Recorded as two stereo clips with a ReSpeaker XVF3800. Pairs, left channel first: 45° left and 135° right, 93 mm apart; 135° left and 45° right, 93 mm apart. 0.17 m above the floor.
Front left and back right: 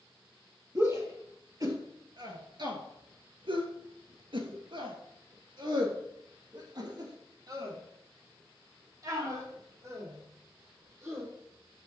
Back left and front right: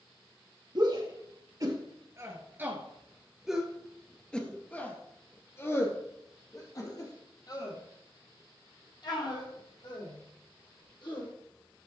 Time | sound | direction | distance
0.8 | a shout | 80° right | 3 m